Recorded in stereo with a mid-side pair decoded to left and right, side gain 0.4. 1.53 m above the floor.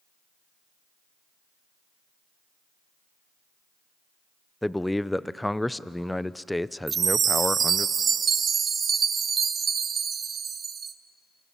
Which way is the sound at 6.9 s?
50° right.